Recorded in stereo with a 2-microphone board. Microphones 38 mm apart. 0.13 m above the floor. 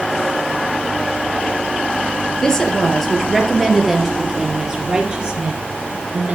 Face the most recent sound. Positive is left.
turn(degrees=-35)  # may be behind; listen again after turning